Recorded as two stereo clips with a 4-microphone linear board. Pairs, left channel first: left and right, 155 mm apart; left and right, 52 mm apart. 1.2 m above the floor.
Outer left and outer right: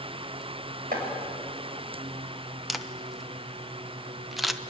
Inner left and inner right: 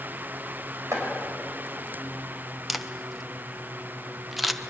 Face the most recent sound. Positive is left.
turn(degrees=0)  # may be behind; listen again after turning